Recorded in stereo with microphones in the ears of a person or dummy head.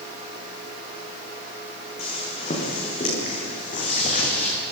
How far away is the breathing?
No breathing in this recording.